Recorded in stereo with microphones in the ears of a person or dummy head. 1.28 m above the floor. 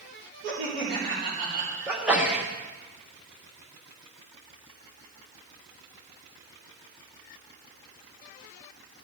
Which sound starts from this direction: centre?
A sneeze, at 1.9 s.